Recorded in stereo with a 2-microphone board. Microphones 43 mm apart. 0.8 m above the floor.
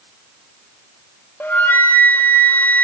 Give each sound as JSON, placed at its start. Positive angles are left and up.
{"t": 1.4, "sound": "a flute", "side_deg": 50, "distance_m": 0.8}